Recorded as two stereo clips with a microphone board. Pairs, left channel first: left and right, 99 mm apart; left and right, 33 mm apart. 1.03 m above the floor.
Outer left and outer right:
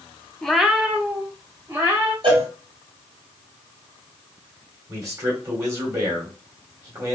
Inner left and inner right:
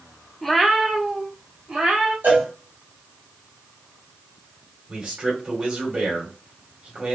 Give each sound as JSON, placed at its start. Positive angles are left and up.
{"t": 0.4, "sound": "a cat meowing", "side_deg": 5, "distance_m": 0.6}
{"t": 2.2, "sound": "a cowbell", "side_deg": -55, "distance_m": 2.5}
{"t": 4.9, "sound": "a man speaking", "side_deg": -30, "distance_m": 2.5}